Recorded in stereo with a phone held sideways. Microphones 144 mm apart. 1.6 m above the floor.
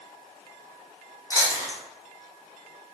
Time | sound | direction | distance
1.3 | chewing | 25° left (ahead or behind) | 0.9 m